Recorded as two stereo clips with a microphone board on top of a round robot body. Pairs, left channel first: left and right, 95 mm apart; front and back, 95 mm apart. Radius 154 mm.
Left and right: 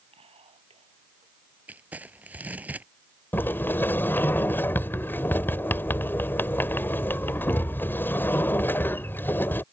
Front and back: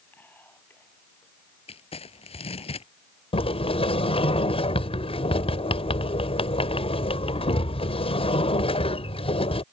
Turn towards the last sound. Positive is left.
turn(degrees=20)